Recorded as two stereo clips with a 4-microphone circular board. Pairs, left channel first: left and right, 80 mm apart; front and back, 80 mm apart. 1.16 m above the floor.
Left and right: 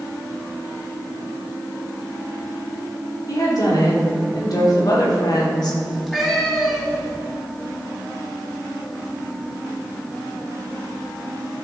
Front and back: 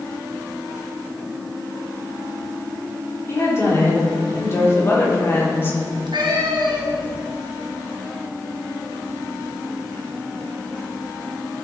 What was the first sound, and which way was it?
A woman speaking, 55° left.